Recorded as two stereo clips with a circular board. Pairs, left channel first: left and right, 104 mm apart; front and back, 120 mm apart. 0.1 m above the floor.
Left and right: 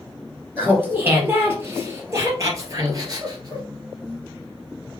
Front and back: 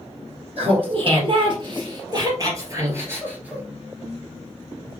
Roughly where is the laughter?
Behind.